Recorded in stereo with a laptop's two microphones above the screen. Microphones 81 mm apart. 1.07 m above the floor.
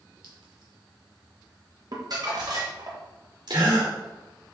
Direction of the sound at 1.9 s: 50° right (ahead or behind).